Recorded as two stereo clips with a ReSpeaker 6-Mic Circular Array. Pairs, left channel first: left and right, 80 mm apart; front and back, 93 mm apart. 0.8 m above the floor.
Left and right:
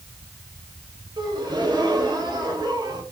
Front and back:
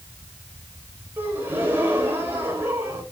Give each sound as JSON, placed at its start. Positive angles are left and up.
{"t": 1.2, "sound": "a gasp", "azimuth_deg": -115, "distance_m": 3.5}